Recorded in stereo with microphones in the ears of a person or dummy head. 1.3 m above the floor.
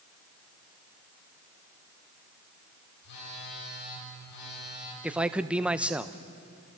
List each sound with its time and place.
3.0 s a phone buzzing: 60° left (ahead or behind), 8 m
5.0 s a man speaking: 5° right (ahead or behind), 0.7 m